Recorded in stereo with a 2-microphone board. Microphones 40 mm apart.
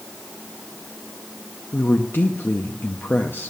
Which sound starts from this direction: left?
A woman speaking, at 1.7 s.